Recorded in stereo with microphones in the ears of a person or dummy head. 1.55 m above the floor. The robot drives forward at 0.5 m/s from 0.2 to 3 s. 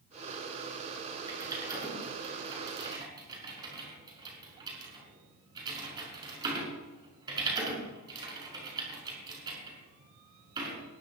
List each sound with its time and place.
1.3 s typing on a keyboard: 25° right (ahead or behind), 6 m; by 10.8 s 30° right (ahead or behind), 5.5 m